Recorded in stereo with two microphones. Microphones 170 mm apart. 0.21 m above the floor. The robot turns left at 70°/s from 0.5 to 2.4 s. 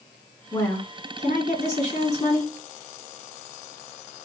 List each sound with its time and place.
0.5 s a woman speaking: 165° left, 1.9 m; by 2.5 s 35° left, 1.9 m